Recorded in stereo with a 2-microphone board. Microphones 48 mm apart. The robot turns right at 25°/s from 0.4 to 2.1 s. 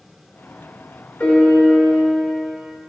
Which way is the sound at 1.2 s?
35° left (ahead or behind).